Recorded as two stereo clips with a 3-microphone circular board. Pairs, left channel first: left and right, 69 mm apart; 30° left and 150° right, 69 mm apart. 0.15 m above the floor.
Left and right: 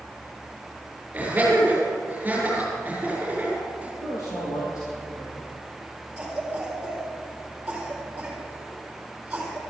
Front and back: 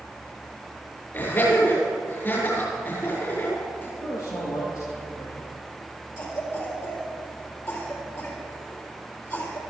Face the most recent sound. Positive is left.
turn(degrees=-20)